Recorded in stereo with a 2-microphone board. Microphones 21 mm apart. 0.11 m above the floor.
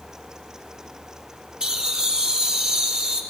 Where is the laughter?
45° right (ahead or behind), 3 m.